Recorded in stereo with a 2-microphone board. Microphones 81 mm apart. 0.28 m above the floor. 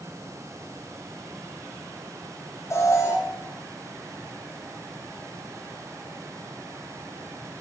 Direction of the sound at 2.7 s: 35° left (ahead or behind).